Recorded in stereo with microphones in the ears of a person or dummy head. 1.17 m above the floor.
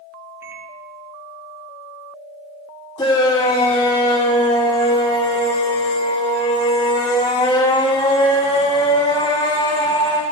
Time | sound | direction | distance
0.4 | a microwave | 15° right (ahead or behind) | 1.0 m
3.0 | a shout | 20° left (ahead or behind) | 1.6 m